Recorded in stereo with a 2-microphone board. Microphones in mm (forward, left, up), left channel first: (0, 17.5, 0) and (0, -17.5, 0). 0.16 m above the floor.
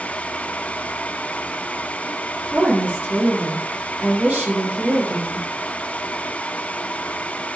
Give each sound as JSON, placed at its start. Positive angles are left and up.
{"t": 2.5, "sound": "a woman speaking", "side_deg": -45, "distance_m": 2.5}